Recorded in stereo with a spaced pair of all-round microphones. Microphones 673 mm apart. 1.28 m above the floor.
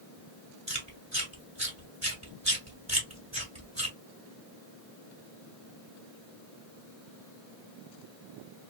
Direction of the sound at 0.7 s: 25° right (ahead or behind).